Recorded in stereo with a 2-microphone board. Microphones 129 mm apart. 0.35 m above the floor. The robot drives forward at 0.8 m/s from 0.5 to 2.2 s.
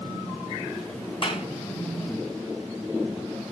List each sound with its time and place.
1.2 s a clap: 45° left (ahead or behind), 3 m; by 1.5 s 40° left (ahead or behind), 3 m